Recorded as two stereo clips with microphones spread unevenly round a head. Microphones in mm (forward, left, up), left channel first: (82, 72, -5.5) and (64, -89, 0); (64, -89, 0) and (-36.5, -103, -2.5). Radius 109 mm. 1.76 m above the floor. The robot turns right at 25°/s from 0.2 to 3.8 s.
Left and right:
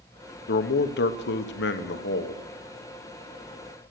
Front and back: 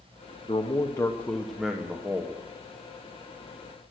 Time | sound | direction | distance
0.5 | a man speaking | 70° left | 0.9 m